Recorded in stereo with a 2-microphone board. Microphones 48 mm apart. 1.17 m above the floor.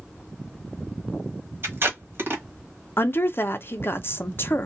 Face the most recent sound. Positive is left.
turn(degrees=55)  # may be behind; listen again after turning